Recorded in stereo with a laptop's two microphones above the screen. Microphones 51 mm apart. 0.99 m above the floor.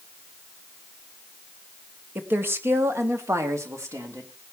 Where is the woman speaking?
40° right (ahead or behind), 1.8 m; by 4.3 s 75° right (ahead or behind), 3.5 m.